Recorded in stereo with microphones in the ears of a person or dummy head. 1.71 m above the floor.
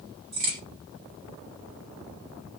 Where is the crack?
45° right (ahead or behind), 1.6 m.